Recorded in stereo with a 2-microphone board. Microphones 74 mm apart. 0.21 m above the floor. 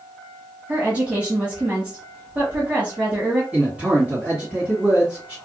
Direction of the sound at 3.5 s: 15° right (ahead or behind).